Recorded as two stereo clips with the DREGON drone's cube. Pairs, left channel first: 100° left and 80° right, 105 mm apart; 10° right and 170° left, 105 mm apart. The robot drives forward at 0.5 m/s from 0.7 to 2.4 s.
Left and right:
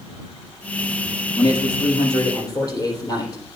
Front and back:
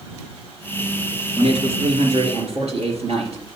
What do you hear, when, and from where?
1.4 s a man speaking: 145° left, 2.5 m; by 3.4 s 155° left, 3 m